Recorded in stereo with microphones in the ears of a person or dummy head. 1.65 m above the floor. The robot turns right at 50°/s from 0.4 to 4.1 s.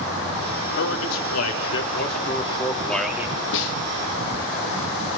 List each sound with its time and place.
0.8 s a man speaking: 65° left, 3 m; by 3.4 s 165° right, 3 m
3.5 s a snare drum: 65° left (ahead or behind), 1.2 m; by 3.8 s 75° left (ahead or behind), 1.2 m